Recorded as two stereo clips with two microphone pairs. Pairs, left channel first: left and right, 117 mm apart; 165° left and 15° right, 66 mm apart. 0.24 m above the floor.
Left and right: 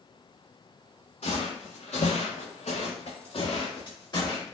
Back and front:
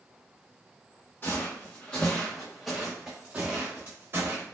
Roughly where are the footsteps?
Left.